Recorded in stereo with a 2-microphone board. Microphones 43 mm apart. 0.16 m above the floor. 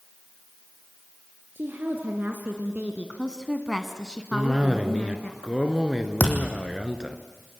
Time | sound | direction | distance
1.6 | a woman speaking | 50° right (ahead or behind) | 3 m
4.3 | a cough | 15° right (ahead or behind) | 2 m
6.2 | a thud | 40° left (ahead or behind) | 3 m